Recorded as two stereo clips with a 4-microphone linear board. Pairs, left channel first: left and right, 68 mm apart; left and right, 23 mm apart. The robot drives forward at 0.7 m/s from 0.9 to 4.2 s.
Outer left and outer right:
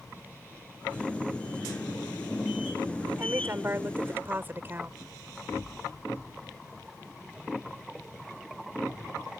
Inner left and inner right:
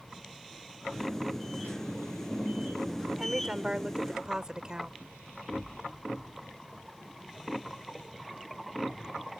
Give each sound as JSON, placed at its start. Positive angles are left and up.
{"t": 3.2, "sound": "a woman speaking", "side_deg": -35}